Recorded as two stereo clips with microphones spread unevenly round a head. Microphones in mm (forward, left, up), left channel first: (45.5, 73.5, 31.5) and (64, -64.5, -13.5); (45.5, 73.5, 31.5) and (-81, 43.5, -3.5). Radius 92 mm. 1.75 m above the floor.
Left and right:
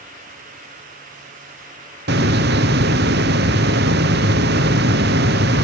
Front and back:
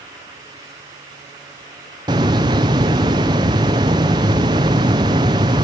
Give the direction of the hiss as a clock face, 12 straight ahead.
3 o'clock.